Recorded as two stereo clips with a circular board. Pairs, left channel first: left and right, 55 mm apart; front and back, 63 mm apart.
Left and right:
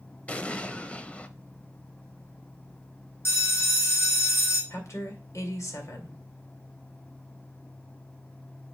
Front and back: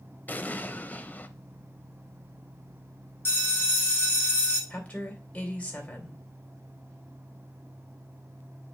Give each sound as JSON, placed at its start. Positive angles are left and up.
{"t": 0.3, "sound": "an explosion", "azimuth_deg": 35, "distance_m": 0.6}
{"t": 3.2, "sound": "a bell", "azimuth_deg": 50, "distance_m": 2.5}
{"t": 4.7, "sound": "a woman speaking", "azimuth_deg": 65, "distance_m": 2.5}